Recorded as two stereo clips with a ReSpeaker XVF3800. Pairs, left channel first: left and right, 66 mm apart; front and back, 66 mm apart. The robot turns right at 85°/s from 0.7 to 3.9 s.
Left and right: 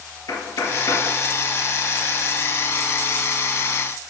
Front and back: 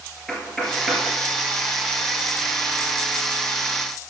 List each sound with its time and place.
0.3 s knocking: 80° left, 1.9 m; by 1.1 s 115° left, 1.9 m